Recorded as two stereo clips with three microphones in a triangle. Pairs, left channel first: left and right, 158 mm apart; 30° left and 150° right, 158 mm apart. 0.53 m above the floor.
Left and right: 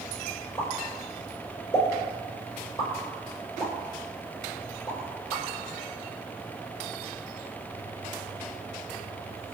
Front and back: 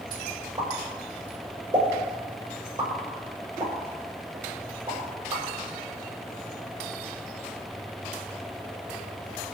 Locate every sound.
0.6 s a pop: 145° left, 6.5 m